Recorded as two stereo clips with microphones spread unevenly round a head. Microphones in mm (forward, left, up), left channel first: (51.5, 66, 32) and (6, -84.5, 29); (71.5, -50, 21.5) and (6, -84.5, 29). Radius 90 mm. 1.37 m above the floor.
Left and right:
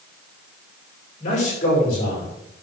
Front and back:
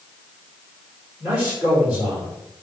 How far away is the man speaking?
About 5.5 m.